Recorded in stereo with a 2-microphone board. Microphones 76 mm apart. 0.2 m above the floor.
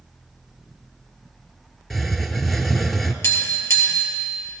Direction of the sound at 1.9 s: Centre (ahead or behind).